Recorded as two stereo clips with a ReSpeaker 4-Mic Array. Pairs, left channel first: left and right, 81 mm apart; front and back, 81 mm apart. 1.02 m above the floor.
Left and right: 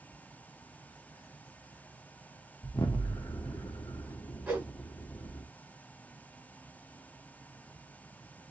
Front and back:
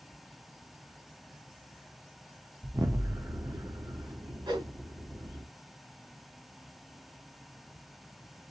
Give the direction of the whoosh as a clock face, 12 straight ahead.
5 o'clock.